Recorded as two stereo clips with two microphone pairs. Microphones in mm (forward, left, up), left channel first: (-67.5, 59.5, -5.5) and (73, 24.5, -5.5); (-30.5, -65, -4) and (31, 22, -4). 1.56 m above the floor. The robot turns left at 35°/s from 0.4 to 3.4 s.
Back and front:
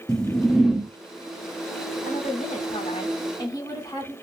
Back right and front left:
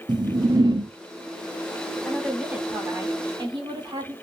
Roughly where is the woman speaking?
Behind left.